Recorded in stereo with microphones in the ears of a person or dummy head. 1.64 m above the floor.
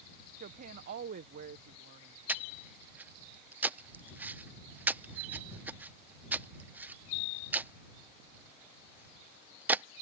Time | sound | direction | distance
0.4 | a woman speaking | 50° right (ahead or behind) | ?
2.3 | breathing | 10° right (ahead or behind) | ?